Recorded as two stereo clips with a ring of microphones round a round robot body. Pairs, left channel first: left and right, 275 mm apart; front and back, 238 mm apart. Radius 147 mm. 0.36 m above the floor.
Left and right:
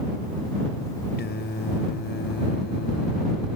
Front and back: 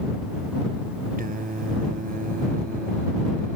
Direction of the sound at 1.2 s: 135° left.